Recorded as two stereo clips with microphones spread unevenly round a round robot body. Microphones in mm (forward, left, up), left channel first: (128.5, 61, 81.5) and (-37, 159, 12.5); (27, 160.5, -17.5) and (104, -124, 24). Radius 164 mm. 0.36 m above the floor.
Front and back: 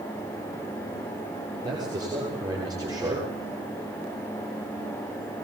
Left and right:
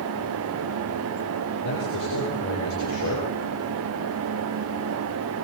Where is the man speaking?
80° left, 9.5 m.